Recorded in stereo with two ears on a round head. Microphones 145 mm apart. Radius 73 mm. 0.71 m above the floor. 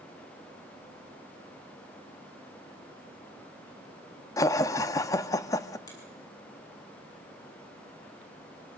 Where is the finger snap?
25° left (ahead or behind), 7.5 m.